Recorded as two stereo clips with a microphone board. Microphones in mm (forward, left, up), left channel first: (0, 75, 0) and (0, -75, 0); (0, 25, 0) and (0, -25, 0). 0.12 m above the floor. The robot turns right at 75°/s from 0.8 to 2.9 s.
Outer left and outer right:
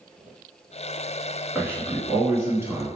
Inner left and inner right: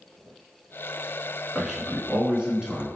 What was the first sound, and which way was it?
A man speaking, 10° right (ahead or behind).